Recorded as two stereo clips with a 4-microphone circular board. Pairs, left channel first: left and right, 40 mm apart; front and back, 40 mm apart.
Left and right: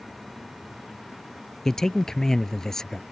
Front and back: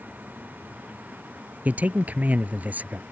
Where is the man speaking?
160° left.